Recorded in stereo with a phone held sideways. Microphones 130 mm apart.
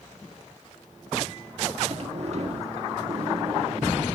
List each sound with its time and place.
1.9 s a sliding door: 55° right (ahead or behind), 1.7 m